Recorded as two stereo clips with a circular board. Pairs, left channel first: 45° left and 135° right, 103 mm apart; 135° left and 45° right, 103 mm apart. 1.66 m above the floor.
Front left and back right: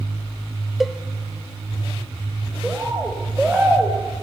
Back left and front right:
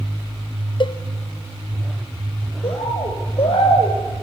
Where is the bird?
140° left, 4 m.